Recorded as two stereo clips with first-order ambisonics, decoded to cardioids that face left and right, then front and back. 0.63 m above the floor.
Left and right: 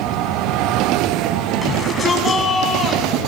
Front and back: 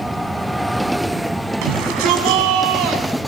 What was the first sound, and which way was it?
A shout, 170° left.